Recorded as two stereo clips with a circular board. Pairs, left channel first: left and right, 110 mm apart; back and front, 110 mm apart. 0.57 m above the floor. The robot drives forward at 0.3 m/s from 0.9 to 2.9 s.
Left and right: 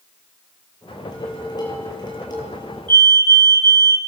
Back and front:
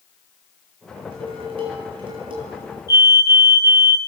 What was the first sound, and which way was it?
Dishes clattering, 35° left.